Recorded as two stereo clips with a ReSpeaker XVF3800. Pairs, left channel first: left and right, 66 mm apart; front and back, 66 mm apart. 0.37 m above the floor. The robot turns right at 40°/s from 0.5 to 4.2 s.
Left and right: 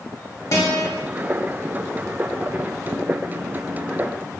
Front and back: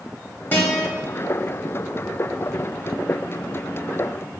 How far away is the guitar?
About 0.7 m.